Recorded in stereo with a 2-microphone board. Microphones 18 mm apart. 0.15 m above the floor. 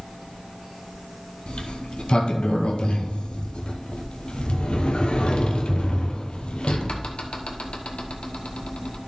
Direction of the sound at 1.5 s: 80° left.